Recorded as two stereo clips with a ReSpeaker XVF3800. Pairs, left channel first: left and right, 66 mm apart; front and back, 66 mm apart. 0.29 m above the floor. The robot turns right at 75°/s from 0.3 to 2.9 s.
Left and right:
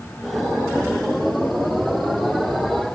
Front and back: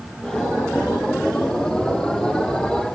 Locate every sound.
Only background noise.